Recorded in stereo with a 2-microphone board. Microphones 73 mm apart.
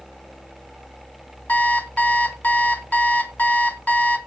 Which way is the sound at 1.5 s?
25° left (ahead or behind).